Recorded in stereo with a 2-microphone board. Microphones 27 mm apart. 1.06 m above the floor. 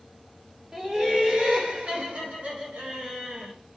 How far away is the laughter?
About 1.0 m.